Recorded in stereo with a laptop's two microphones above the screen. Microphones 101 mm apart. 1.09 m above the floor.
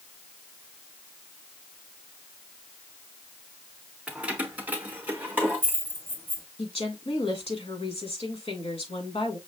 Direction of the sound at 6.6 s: 75° left (ahead or behind).